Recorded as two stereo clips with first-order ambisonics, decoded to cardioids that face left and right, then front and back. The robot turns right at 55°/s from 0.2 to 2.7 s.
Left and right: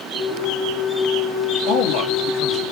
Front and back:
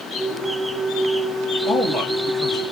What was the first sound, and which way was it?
A man speaking, 60° left.